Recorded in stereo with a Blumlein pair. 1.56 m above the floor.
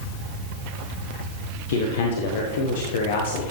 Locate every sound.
1.7 s a man speaking: 55° left, 1.4 m